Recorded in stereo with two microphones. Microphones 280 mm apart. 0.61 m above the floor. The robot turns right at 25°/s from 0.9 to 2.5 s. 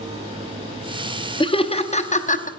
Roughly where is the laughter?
Centre.